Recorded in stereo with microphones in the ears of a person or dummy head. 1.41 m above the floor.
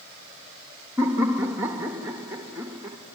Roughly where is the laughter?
Centre.